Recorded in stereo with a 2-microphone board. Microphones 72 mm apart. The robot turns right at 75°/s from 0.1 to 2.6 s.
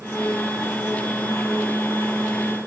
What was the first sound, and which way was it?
Only background noise.